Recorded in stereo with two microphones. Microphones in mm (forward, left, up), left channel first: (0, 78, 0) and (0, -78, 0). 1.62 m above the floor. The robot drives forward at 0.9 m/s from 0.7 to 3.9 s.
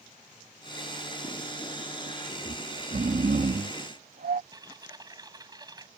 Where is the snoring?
55° right (ahead or behind); by 4.4 s 75° right (ahead or behind).